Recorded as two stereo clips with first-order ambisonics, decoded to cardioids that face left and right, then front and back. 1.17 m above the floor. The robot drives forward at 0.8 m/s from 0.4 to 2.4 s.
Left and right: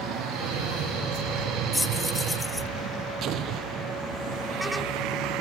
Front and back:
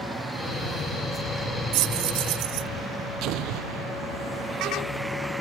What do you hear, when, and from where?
1.7 s keys jangling: 170° left; by 2.7 s 175° left
3.2 s an explosion: 140° right